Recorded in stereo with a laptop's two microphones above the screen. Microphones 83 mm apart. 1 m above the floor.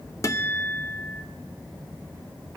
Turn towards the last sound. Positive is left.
turn(degrees=35)  # may be behind; listen again after turning